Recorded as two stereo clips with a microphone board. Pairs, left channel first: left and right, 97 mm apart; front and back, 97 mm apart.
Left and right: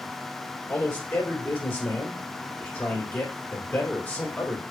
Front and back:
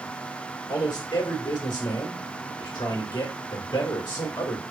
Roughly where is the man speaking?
Ahead.